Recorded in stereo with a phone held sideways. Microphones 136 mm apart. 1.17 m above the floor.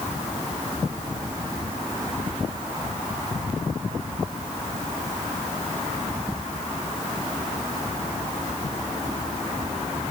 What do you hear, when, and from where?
Only background noise.